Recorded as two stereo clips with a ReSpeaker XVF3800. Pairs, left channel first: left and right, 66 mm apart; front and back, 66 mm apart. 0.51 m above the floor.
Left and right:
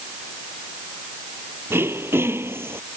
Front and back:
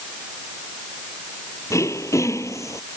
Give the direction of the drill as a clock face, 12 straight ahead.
No drill in this recording.